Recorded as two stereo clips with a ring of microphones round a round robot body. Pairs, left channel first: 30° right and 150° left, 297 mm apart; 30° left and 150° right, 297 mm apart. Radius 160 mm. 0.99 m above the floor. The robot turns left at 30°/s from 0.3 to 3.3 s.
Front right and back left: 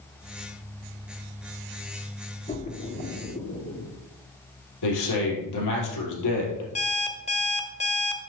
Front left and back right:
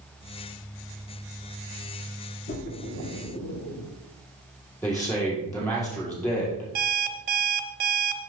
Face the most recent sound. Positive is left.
turn(degrees=-95)